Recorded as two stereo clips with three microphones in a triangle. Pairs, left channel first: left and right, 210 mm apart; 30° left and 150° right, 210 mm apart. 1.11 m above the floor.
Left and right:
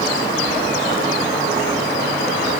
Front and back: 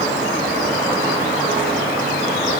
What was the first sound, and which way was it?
Only background noise.